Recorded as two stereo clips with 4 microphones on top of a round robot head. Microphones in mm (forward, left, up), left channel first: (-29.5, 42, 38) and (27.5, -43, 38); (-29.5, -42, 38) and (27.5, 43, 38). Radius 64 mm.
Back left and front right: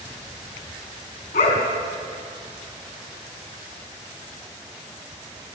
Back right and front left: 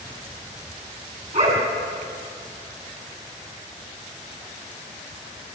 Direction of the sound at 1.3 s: 90° left.